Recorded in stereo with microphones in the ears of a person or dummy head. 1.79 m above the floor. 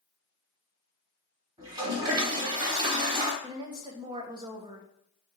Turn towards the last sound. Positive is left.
turn(degrees=-25)  # may be behind; listen again after turning